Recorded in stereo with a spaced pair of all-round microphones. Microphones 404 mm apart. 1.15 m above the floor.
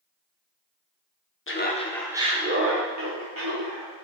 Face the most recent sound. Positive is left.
turn(degrees=-60)  # may be behind; listen again after turning